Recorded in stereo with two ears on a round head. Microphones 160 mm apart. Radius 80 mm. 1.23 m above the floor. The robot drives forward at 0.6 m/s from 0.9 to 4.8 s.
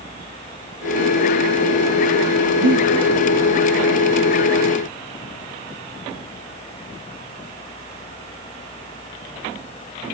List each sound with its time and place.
2.6 s breathing: 70° right (ahead or behind), 1.4 m